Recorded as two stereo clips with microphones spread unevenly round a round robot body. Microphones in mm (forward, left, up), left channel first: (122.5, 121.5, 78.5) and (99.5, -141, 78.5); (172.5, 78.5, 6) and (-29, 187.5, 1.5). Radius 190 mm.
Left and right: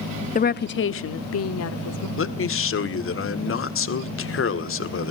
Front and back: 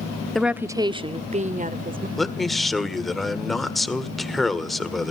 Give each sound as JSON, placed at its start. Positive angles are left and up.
{"t": 0.3, "sound": "a woman speaking", "azimuth_deg": 60, "distance_m": 0.7}
{"t": 2.2, "sound": "a man speaking", "azimuth_deg": 60, "distance_m": 1.8}